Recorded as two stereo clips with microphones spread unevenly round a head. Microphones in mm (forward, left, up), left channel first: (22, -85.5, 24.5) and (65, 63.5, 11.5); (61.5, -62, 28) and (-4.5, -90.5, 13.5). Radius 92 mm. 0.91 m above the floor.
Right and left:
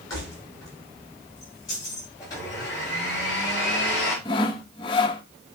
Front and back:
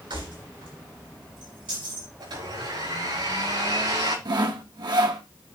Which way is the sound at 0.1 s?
Straight behind.